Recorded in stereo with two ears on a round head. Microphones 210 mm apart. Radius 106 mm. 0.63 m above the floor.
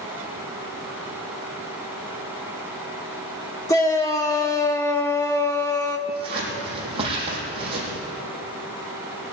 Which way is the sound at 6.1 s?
25° right (ahead or behind).